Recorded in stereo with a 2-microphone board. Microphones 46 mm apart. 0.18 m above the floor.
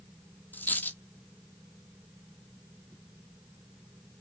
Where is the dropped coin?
45° left (ahead or behind), 1.0 m.